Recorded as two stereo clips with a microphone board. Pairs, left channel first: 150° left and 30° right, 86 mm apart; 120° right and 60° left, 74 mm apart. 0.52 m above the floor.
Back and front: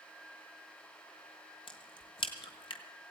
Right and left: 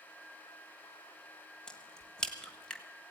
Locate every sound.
1.7 s a crack: 160° left, 1.4 m